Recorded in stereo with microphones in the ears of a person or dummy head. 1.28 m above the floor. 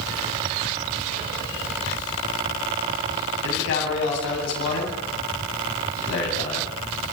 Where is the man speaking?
65° left (ahead or behind), 9 m.